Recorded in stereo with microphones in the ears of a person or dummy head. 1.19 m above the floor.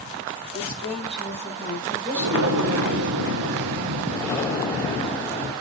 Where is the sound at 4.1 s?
20° left (ahead or behind), 4 m.